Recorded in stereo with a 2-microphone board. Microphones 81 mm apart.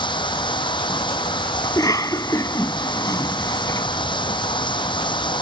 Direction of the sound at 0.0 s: 80° left.